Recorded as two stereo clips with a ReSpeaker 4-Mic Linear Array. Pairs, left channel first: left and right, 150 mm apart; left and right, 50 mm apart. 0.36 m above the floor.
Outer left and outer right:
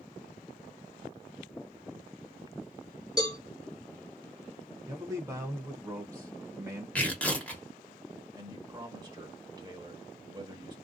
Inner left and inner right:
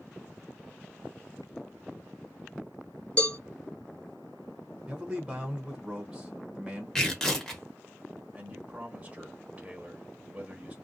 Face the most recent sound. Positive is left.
turn(degrees=-25)  # may be behind; listen again after turning